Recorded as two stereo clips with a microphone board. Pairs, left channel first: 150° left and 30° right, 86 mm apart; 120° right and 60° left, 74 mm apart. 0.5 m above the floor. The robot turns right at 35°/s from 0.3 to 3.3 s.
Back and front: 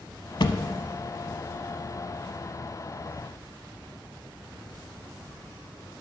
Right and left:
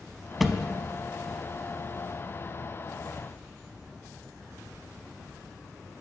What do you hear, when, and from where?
0.4 s a thud: 145° left, 0.6 m; by 0.7 s 155° left, 0.6 m